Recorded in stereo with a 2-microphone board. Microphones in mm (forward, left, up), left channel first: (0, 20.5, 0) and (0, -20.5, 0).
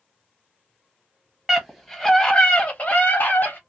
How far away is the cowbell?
I don't hear a cowbell.